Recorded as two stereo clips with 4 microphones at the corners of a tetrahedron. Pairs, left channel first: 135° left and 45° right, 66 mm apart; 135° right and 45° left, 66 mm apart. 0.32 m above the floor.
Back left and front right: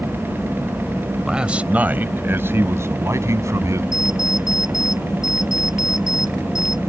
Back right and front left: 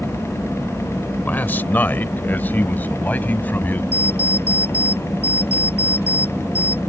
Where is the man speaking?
115° right; by 3.8 s 75° right.